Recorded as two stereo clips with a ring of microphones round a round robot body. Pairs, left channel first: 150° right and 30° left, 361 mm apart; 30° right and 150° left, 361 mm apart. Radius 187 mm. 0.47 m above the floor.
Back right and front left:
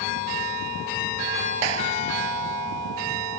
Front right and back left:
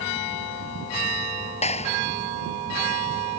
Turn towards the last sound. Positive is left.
turn(degrees=45)